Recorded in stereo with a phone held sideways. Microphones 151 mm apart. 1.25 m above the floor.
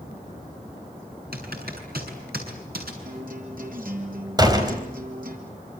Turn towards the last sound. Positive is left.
turn(degrees=-25)  # may be behind; listen again after turning